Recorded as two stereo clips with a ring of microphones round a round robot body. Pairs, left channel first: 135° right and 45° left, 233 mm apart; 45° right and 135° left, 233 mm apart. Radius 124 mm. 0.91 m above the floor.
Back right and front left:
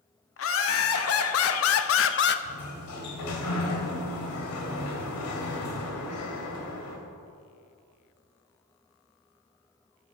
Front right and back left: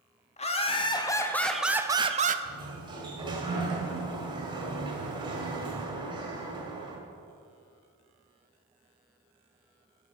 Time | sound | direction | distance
0.4 | laughter | 105° right | 1.3 m
2.5 | a sliding door | 155° right | 1.8 m